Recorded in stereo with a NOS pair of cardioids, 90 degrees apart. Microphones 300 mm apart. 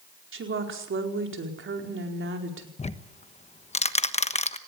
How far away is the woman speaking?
About 4.5 m.